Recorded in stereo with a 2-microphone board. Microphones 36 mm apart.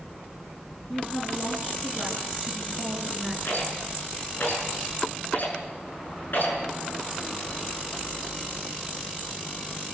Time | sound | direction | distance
0.9 | a woman speaking | 15° left (ahead or behind) | 8 m
3.5 | a rattle | 60° left (ahead or behind) | 6 m